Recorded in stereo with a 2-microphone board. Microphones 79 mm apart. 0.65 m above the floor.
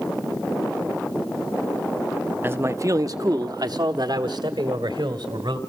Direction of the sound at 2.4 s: 25° right (ahead or behind).